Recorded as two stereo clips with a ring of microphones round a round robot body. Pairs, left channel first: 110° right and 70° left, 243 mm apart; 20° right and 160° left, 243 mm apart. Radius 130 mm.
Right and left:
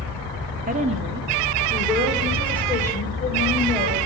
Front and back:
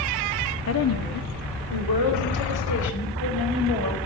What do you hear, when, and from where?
0.7 s a woman speaking: 10° left, 1.6 m; by 4.1 s 40° right, 4 m